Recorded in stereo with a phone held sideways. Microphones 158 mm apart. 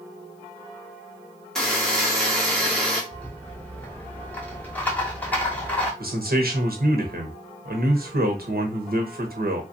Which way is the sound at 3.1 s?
10° left (ahead or behind).